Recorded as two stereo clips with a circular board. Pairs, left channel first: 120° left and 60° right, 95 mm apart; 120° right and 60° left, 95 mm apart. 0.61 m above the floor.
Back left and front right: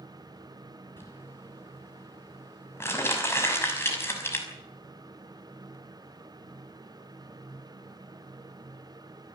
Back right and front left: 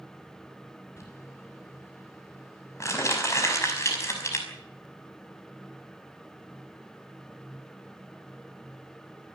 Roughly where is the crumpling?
Behind.